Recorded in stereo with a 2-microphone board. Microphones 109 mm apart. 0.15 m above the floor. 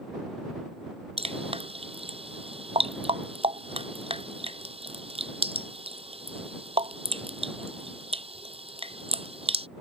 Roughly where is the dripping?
Right.